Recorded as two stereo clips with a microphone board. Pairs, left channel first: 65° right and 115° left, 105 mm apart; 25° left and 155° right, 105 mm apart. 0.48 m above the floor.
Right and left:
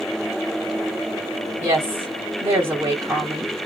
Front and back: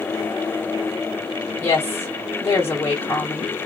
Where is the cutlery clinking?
I don't hear cutlery clinking.